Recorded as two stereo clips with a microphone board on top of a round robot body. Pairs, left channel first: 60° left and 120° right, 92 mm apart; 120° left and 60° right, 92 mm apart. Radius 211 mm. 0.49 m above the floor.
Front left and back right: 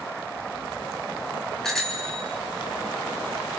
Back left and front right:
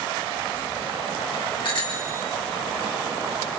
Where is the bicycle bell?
145° left, 6 m.